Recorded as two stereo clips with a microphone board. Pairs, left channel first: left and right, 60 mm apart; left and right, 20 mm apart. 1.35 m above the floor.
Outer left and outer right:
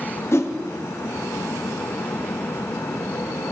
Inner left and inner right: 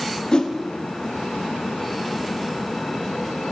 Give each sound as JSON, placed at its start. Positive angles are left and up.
{"t": 0.3, "sound": "a whoosh", "side_deg": 45, "distance_m": 0.9}